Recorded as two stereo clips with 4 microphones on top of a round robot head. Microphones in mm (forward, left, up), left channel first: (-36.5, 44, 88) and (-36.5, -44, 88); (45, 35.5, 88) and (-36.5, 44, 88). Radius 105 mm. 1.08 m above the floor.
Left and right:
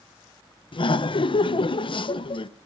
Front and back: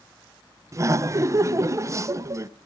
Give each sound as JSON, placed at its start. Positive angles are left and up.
{"t": 0.7, "sound": "laughter", "azimuth_deg": 120, "distance_m": 0.5}